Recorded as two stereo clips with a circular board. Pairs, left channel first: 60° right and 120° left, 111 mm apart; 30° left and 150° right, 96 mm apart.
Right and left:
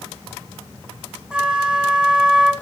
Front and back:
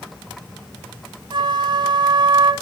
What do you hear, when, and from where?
1.3 s a flute: 160° right, 1.0 m